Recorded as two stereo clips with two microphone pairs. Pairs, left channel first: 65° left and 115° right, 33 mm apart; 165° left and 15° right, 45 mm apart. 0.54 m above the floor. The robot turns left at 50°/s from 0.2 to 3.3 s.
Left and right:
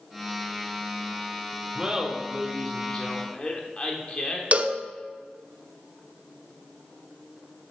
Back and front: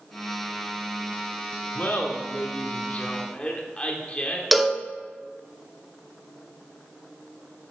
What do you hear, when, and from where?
1.8 s laughter: 175° right, 1.3 m; by 4.4 s 110° left, 1.3 m
4.5 s a cowbell: 110° right, 0.7 m